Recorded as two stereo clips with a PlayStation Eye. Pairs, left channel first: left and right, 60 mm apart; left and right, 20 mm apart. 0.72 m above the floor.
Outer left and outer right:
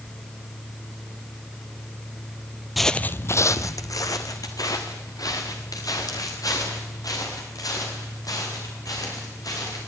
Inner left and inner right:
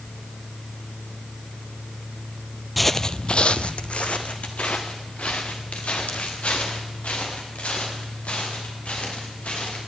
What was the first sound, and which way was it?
Footsteps, 5° right (ahead or behind).